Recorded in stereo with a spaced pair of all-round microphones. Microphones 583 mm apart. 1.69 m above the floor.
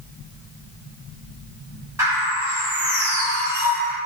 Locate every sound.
2.0 s a bird: 5° right (ahead or behind), 1.2 m